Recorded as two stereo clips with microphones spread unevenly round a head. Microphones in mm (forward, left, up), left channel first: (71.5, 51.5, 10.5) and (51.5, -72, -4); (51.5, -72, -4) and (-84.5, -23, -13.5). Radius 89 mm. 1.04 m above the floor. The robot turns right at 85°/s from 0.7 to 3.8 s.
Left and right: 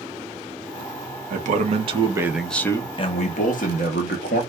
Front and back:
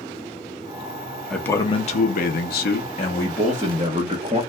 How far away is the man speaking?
About 0.9 m.